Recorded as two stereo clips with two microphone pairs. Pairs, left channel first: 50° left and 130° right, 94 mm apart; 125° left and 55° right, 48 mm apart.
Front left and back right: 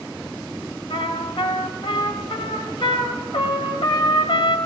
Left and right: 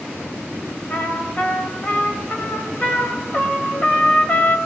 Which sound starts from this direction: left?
A trumpet, at 0.9 s.